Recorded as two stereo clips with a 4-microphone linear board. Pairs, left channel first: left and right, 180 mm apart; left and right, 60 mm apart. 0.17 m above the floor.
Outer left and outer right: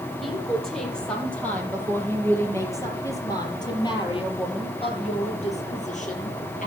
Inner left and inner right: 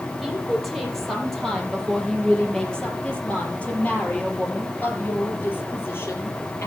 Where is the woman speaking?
Centre (ahead or behind), 6 m; by 6.7 s 45° left (ahead or behind), 4.5 m.